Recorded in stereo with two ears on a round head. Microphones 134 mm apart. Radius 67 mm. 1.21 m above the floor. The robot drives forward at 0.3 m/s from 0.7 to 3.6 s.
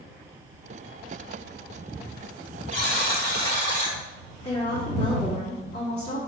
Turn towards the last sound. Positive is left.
turn(degrees=40)  # may be behind; listen again after turning